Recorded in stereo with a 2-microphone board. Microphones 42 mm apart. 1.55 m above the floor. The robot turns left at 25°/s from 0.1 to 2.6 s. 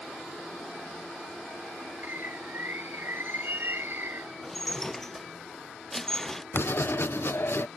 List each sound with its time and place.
2.0 s a bird: 55° right (ahead or behind); by 4.3 s 65° right (ahead or behind)
4.4 s dishes clattering: 10° left (ahead or behind)
6.5 s writing: 65° left (ahead or behind)